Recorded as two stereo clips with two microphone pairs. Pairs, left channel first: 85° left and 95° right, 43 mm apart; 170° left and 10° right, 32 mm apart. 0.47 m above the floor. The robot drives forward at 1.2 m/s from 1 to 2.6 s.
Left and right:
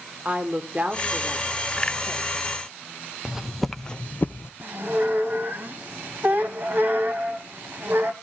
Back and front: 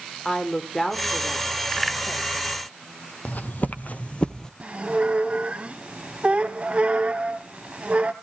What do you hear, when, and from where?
0.2 s a woman speaking: 125° right, 1.4 m; by 2.6 s 165° right, 2.5 m
3.2 s footsteps: 170° right, 1.1 m; by 4.5 s 100° left, 0.8 m
4.6 s a squeak: 60° right, 1.6 m